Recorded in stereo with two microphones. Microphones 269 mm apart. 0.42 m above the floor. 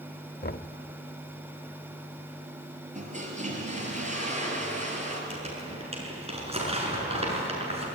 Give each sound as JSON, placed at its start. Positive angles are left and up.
{"t": 0.4, "sound": "knocking", "side_deg": 40, "distance_m": 0.7}
{"t": 3.0, "sound": "a toilet flushing", "side_deg": -25, "distance_m": 4.5}
{"t": 5.3, "sound": "crumpling", "side_deg": -20, "distance_m": 6.0}